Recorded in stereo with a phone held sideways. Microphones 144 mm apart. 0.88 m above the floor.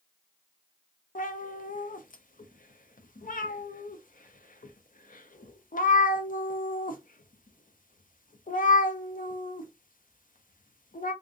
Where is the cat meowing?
70° left (ahead or behind), 0.5 m.